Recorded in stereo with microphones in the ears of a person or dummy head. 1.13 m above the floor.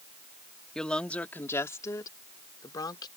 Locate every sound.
0.8 s a woman speaking: 5° left (ahead or behind); by 3.1 s 25° left (ahead or behind)